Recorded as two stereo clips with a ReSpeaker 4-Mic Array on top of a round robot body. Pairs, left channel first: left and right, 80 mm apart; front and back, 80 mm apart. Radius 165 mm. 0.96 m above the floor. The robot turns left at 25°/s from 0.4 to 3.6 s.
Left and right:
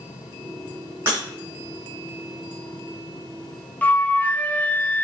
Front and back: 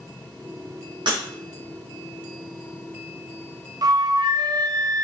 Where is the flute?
155° left, 0.6 m.